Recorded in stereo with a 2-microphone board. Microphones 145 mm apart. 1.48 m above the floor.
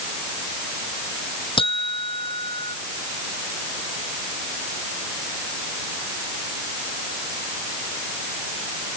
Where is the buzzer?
35° left (ahead or behind).